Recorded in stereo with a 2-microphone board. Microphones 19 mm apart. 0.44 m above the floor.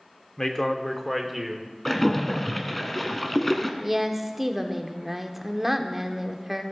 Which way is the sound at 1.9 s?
15° left (ahead or behind).